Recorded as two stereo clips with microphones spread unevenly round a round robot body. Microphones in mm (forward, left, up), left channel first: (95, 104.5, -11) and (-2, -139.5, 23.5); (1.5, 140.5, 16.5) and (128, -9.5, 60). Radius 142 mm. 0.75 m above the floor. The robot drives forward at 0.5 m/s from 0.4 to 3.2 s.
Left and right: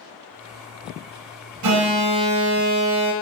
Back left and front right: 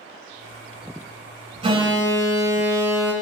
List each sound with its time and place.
1.6 s an alarm: 120° right, 1.6 m; by 3.1 s 140° right, 2 m